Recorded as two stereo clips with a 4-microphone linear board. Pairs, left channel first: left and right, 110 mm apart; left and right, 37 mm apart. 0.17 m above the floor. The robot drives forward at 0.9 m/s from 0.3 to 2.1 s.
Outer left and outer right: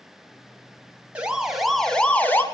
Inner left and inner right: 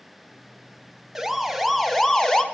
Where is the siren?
10° right (ahead or behind), 2 m; by 2.4 s 20° left (ahead or behind), 1.8 m.